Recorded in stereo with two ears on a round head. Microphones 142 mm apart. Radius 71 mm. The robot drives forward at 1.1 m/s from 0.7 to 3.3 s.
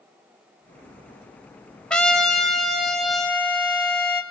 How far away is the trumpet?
About 0.6 m.